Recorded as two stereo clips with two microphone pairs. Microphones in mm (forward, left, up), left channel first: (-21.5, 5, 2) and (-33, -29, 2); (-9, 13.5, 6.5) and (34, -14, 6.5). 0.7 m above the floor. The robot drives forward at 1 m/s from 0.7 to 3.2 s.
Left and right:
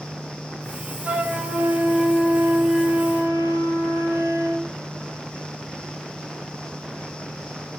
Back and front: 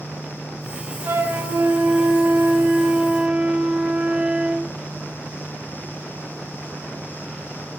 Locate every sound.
1.1 s a flute: 60° right, 4 m; by 4.7 s 95° right, 3.5 m